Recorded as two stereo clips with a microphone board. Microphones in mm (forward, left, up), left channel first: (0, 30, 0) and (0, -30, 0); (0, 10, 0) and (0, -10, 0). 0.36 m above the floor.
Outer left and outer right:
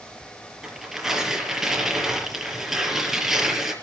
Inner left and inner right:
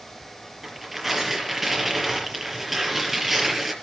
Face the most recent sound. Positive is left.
turn(degrees=-5)  # may be behind; listen again after turning